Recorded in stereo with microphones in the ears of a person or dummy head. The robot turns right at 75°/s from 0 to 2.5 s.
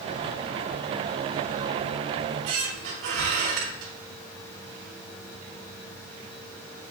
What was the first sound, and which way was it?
A squeak, 65° right (ahead or behind).